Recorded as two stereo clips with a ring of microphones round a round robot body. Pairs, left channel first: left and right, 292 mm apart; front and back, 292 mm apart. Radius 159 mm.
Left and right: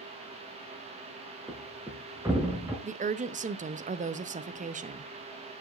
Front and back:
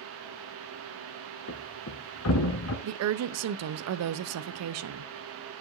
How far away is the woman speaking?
About 0.6 m.